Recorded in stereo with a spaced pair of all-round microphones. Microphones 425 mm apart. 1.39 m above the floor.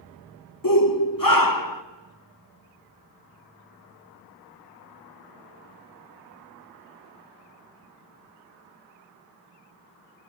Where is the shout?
50° left (ahead or behind), 1.4 m.